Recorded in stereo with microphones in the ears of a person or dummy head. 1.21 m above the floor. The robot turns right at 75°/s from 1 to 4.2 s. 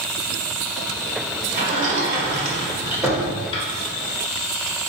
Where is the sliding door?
50° right (ahead or behind), 1.0 m; by 3.6 s 35° left (ahead or behind), 1.0 m.